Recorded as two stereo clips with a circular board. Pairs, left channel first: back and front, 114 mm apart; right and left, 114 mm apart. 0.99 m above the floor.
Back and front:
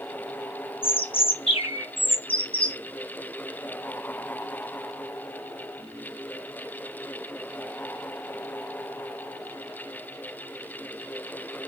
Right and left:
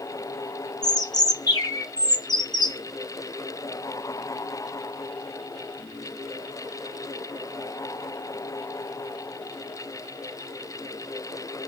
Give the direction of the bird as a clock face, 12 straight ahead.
5 o'clock.